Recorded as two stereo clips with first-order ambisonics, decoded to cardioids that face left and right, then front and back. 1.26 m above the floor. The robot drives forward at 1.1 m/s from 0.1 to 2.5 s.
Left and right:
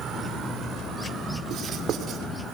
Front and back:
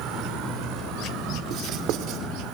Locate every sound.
0.0 s an insect: 150° right, 2.5 m; by 2.5 s 165° right, 5 m
1.5 s writing: 135° right, 1.9 m; by 2.2 s 150° right, 2.5 m